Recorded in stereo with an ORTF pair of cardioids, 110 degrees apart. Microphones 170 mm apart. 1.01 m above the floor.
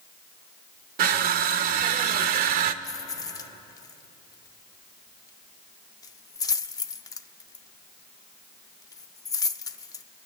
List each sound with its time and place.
1.0 s crushing: 60° right, 0.6 m
2.8 s keys jangling: 20° left, 0.6 m